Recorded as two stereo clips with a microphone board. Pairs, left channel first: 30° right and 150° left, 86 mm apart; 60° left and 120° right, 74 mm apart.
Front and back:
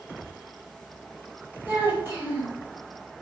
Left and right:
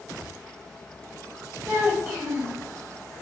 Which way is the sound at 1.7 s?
160° right.